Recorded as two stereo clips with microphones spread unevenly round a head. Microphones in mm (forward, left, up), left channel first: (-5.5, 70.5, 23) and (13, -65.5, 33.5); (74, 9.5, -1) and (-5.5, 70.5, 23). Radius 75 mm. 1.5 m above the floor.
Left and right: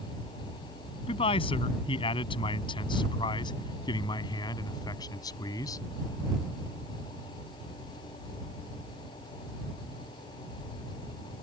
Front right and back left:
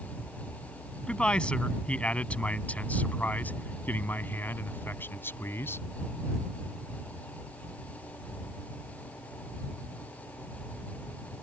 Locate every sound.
1.1 s a man speaking: 45° left; by 5.9 s 30° left